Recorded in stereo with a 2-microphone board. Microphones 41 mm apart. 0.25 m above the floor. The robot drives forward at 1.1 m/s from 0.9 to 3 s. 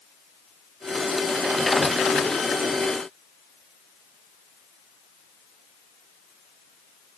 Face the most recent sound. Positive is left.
No sound to turn to.